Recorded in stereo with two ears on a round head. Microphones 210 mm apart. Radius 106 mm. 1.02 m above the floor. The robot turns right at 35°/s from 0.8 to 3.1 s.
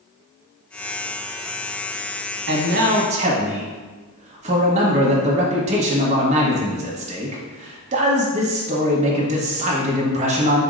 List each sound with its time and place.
2.5 s a man speaking: 45° right (ahead or behind), 0.7 m; by 10.6 s 30° right (ahead or behind), 0.7 m